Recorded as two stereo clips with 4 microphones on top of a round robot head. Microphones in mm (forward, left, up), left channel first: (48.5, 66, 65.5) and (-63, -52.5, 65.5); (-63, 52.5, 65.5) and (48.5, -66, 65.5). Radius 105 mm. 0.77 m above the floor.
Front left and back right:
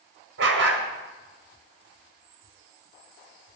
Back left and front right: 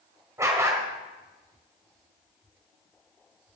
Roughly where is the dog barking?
Behind right.